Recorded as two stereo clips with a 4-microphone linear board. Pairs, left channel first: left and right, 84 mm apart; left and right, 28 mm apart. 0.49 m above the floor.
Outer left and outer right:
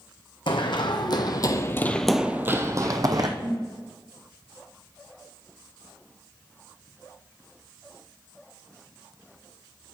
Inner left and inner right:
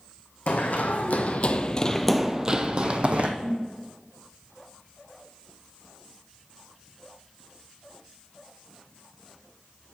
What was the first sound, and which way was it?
Running footsteps, 70° left (ahead or behind).